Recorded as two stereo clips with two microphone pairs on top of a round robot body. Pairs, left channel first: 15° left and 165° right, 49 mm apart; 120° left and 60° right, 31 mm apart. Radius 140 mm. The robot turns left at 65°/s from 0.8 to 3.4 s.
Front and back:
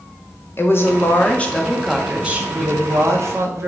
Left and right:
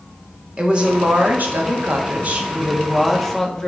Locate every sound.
0.6 s a woman speaking: 5° right, 2 m; by 3.7 s 175° right, 2 m